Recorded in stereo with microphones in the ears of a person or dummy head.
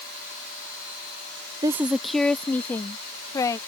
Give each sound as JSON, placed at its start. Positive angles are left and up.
{"t": 1.6, "sound": "a woman speaking", "side_deg": -20}